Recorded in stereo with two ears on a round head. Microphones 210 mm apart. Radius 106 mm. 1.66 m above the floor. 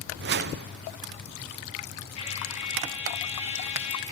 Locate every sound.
0.2 s a whoosh: 45° right (ahead or behind), 0.5 m
2.2 s a trumpet: 30° left (ahead or behind), 2 m